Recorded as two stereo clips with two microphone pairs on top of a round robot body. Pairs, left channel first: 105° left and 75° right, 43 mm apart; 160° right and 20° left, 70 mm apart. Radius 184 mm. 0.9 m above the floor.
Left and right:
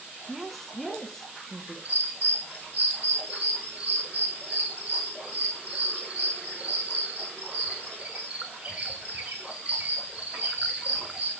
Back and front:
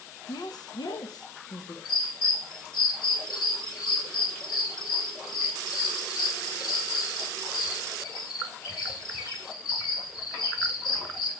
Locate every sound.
0.3 s a woman speaking: 170° right, 1.9 m; by 1.8 s 175° left, 2.5 m
1.9 s a bird: 135° right, 6 m